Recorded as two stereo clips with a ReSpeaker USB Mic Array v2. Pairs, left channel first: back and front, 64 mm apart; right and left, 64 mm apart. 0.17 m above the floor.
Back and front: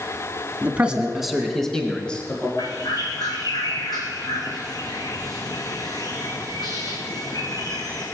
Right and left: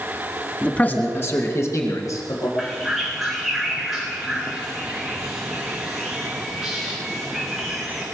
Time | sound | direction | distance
0.6 | a man speaking | 40° right | 1.7 m
2.6 | a bird | straight behind | 2.5 m